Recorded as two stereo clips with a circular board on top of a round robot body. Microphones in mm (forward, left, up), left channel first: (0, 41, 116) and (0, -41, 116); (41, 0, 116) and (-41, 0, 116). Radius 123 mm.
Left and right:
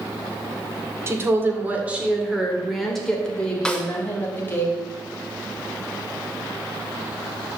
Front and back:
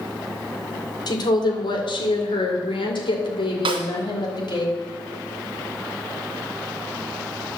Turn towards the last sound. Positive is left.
turn(degrees=175)